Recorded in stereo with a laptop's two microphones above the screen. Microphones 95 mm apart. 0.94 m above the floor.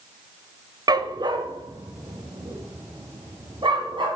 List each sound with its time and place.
0.9 s a dog barking: 45° right (ahead or behind), 0.6 m; by 4.1 s 55° right (ahead or behind), 3 m